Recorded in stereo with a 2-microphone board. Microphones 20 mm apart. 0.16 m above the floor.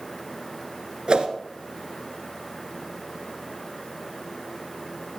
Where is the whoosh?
55° right (ahead or behind), 1.5 m.